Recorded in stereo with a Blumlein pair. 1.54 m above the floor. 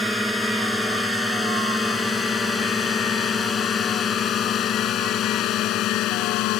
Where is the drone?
Straight ahead; by 6.6 s 40° left.